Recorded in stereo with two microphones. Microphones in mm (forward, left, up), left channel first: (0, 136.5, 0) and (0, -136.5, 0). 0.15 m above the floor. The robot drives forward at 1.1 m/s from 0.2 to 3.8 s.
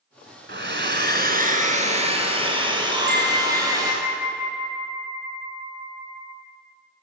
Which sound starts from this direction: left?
A bell, at 2.9 s.